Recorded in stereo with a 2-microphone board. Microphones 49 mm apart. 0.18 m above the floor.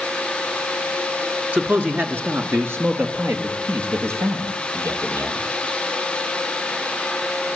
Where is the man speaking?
35° right (ahead or behind), 2.5 m; by 5.5 s 70° right (ahead or behind), 6.5 m.